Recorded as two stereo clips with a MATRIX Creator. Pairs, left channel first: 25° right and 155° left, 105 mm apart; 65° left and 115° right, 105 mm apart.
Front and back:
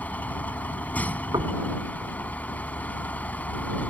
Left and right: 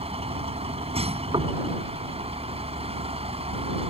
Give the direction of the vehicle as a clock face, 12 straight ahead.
3 o'clock.